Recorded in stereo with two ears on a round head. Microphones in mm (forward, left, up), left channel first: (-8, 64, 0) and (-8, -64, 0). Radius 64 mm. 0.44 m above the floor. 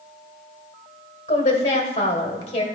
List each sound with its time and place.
1.3 s a woman speaking: 45° left (ahead or behind), 1.6 m